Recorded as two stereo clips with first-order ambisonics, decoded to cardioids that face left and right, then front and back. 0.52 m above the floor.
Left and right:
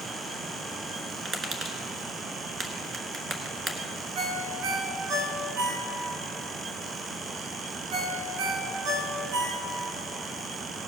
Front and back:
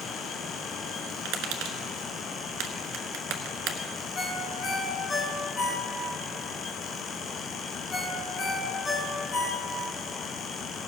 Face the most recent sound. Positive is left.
turn(degrees=-70)